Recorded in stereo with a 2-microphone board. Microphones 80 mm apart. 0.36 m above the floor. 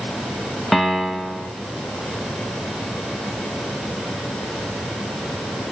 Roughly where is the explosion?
No explosion in this recording.